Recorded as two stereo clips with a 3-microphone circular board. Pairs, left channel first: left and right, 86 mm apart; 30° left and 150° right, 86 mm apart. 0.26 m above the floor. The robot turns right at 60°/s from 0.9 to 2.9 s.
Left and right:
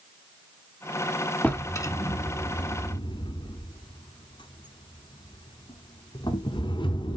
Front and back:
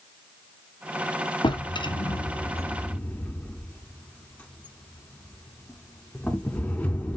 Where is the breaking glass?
I don't hear breaking glass.